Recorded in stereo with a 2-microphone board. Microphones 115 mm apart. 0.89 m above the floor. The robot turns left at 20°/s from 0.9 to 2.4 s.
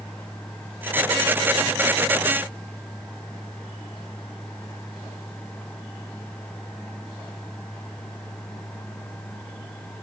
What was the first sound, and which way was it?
Only background noise.